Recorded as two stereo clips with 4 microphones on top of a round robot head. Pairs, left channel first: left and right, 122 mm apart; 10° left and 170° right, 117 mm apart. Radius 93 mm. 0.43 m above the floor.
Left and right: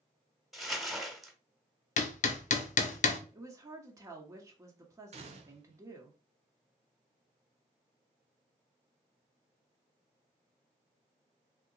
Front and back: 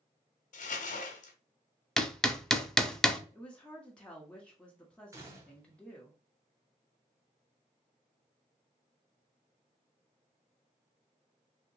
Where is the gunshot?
110° right, 0.7 m.